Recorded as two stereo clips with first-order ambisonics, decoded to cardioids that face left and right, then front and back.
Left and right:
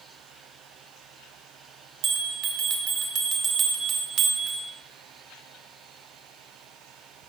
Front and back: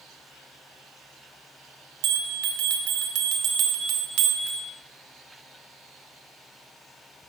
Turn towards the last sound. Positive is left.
turn(degrees=-145)